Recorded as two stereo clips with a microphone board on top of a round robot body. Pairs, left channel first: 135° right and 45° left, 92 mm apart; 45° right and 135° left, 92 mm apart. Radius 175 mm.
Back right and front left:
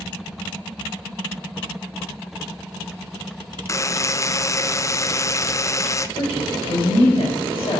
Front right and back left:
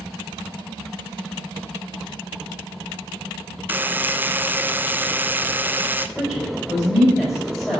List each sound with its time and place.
3.7 s a buzzer: 165° right, 0.6 m
6.2 s a woman speaking: 125° right, 4 m